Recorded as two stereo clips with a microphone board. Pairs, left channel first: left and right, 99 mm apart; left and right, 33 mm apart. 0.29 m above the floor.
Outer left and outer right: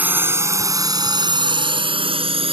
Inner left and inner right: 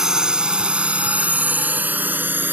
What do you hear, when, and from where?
0.0 s a drone: 15° right (ahead or behind); by 2.5 s 65° right (ahead or behind)